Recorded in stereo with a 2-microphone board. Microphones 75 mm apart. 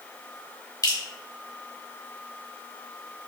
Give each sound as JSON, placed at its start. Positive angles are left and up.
{"t": 0.8, "sound": "dripping", "side_deg": 50, "distance_m": 1.1}